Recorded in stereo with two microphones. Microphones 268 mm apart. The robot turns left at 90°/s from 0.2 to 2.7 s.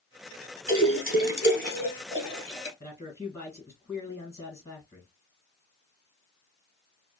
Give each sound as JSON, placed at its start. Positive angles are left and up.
{"t": 0.7, "sound": "a splash", "side_deg": -15, "distance_m": 1.0}
{"t": 2.8, "sound": "a man speaking", "side_deg": 10, "distance_m": 1.4}